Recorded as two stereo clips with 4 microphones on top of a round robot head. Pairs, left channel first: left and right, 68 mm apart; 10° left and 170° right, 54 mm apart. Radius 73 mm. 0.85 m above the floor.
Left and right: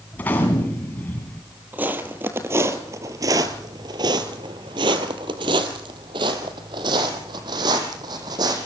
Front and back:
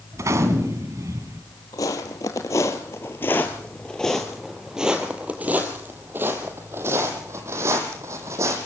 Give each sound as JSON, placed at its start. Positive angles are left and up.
{"t": 0.1, "sound": "a gunshot", "azimuth_deg": 160, "distance_m": 2.0}
{"t": 1.7, "sound": "footsteps", "azimuth_deg": -25, "distance_m": 1.7}